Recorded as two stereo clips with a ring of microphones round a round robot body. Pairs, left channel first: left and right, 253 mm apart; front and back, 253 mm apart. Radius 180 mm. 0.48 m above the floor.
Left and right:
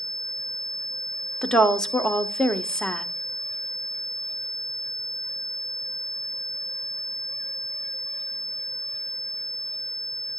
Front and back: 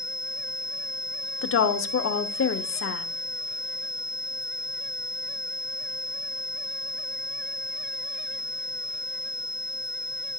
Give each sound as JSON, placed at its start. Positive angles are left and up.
{"t": 1.4, "sound": "a woman speaking", "azimuth_deg": 5, "distance_m": 1.1}